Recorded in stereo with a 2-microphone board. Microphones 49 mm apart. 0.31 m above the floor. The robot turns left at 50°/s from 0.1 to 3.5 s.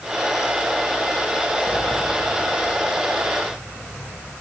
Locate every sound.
1.7 s a sliding door: 170° right, 5 m; by 4.3 s 100° left, 5 m